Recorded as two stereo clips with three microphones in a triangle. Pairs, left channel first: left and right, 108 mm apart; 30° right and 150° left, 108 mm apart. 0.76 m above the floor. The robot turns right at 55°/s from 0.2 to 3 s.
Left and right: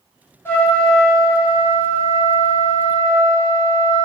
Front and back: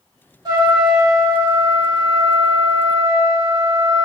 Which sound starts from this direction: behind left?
A trumpet, at 0.5 s.